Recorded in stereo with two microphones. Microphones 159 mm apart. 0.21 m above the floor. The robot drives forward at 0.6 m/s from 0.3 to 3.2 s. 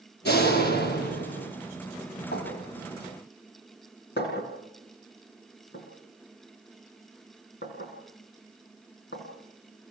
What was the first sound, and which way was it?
A door slam, 80° left.